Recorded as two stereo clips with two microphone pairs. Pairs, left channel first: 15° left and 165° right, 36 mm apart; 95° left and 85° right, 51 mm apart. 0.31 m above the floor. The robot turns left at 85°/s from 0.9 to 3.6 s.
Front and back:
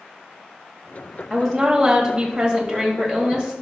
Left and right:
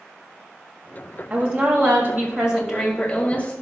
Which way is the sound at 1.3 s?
50° right.